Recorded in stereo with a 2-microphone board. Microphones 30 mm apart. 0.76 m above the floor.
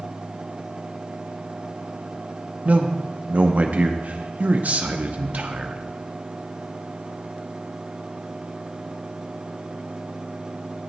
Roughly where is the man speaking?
Right.